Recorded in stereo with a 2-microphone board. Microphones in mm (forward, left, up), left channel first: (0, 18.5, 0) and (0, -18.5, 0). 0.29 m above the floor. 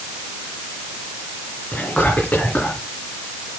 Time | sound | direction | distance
1.7 | whispering | 35° left (ahead or behind) | 3.5 m